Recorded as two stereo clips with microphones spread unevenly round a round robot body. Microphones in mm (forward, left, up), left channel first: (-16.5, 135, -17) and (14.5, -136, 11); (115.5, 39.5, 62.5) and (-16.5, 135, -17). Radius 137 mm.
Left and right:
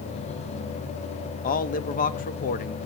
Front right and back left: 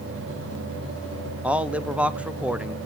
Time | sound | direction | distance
1.4 | a man speaking | 115° left | 0.7 m